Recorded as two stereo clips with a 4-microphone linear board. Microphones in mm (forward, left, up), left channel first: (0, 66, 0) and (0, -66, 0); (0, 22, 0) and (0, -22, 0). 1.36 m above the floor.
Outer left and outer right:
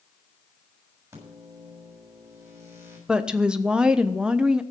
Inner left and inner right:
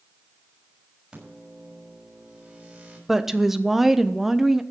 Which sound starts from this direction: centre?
A woman speaking, at 3.1 s.